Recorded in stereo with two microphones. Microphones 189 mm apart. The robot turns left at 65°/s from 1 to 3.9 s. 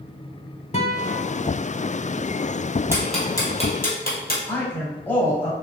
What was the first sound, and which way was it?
A guitar, 35° left (ahead or behind).